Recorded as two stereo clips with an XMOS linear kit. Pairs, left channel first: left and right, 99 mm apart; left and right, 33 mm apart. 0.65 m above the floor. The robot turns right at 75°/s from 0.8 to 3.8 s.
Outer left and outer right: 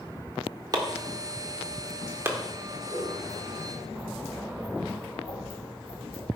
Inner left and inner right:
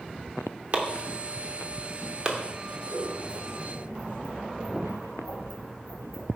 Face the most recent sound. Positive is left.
turn(degrees=50)  # may be behind; listen again after turning